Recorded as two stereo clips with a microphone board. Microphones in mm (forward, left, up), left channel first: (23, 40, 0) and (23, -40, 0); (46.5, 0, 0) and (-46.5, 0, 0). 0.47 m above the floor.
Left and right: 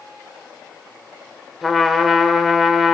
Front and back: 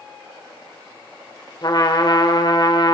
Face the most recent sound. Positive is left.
turn(degrees=-5)